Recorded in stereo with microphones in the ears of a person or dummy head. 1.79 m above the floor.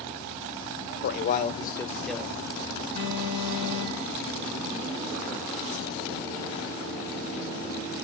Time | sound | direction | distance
1.0 | a man speaking | 65° left (ahead or behind) | 1.2 m
3.0 | an alarm | 75° right (ahead or behind) | 5.5 m